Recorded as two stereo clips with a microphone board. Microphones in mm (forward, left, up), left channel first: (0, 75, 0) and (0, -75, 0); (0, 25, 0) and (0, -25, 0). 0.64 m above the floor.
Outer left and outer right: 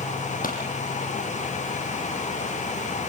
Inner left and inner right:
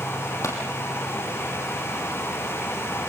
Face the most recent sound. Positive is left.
turn(degrees=70)  # may be behind; listen again after turning